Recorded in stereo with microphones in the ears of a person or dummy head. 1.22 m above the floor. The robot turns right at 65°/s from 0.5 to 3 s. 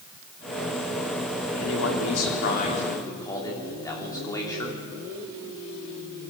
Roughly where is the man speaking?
Ahead left.